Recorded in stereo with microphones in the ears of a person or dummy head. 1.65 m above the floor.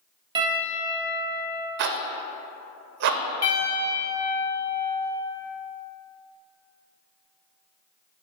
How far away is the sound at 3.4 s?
About 1.0 m.